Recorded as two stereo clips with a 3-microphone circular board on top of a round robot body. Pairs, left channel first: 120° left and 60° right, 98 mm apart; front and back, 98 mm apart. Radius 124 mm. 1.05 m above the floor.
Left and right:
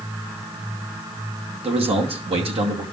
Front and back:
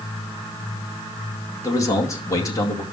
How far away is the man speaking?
About 2.5 m.